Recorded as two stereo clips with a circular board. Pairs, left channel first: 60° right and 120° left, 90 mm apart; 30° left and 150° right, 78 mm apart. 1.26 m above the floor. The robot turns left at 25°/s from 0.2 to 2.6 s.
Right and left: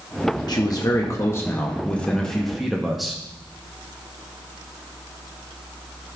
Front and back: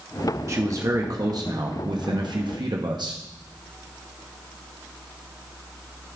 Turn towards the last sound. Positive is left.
turn(degrees=-150)